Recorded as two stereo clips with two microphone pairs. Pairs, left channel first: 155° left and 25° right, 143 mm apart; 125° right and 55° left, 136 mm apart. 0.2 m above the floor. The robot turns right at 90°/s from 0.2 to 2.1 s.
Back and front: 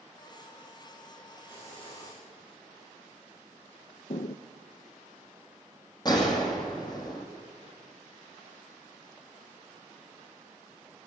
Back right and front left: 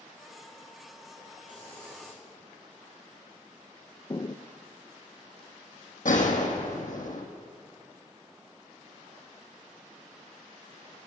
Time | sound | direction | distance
1.5 | a hiss | 70° left | 6.5 m
4.1 | footsteps | straight behind | 0.5 m
6.0 | a gunshot | 145° right | 1.9 m